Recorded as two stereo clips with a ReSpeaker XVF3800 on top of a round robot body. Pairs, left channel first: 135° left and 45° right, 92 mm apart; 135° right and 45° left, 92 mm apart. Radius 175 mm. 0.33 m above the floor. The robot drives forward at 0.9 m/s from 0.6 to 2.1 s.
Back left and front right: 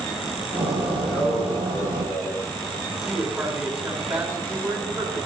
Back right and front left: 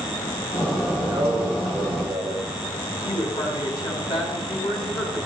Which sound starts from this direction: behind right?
A woman speaking, at 3.0 s.